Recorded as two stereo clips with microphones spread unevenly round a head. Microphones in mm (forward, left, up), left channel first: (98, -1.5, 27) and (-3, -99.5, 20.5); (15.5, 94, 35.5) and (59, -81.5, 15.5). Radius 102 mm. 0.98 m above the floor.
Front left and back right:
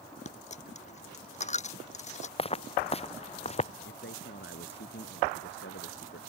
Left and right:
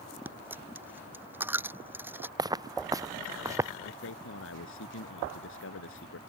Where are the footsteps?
5° right; by 3.7 s straight ahead.